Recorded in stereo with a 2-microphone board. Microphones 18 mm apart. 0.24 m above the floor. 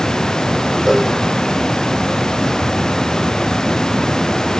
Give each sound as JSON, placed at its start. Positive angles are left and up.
{"t": 0.9, "sound": "a cowbell", "side_deg": -20, "distance_m": 3.0}